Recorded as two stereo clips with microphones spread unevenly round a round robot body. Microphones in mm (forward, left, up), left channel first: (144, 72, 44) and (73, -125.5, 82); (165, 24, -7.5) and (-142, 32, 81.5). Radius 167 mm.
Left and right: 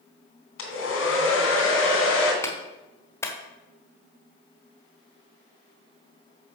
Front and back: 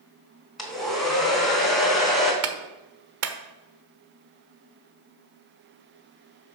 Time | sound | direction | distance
0.6 | a hair dryer | 85° left | 2.5 m
2.4 | a clap | 135° left | 1.2 m